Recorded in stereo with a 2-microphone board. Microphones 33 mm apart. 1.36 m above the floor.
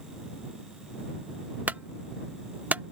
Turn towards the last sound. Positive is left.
turn(degrees=-60)  # may be behind; listen again after turning